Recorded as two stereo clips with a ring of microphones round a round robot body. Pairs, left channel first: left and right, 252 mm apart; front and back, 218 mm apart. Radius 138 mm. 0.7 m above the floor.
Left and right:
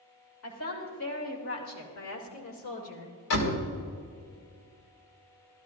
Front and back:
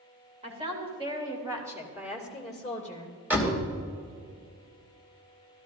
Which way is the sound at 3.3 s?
100° left.